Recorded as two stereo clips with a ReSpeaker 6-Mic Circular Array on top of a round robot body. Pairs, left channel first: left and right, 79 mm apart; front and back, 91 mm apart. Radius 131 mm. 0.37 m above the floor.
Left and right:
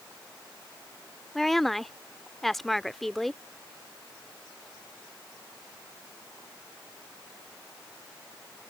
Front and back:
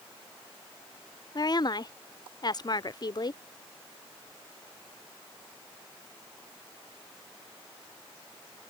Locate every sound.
1.4 s a woman speaking: 5° left